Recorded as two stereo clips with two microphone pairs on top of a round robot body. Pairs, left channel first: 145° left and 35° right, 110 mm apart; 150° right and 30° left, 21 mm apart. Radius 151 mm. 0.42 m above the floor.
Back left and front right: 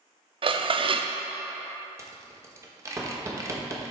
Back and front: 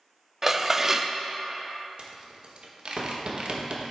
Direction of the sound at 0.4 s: 30° right.